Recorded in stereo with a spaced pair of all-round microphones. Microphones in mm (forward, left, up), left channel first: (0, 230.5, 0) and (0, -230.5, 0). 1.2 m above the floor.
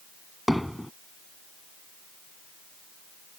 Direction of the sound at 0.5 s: Centre (ahead or behind).